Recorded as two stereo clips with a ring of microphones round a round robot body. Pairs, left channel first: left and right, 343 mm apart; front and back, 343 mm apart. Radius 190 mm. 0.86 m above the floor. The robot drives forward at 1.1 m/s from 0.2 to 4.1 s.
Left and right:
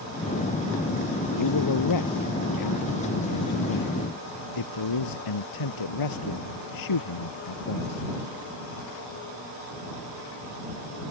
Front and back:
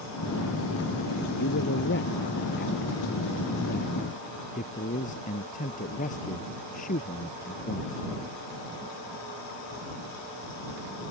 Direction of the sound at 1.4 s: 60° left.